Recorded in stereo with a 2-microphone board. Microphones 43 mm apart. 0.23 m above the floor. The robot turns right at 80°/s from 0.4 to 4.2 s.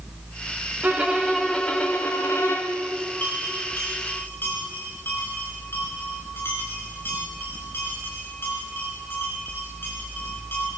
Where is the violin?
45° right, 4.5 m; by 2.8 s 110° left, 4.5 m.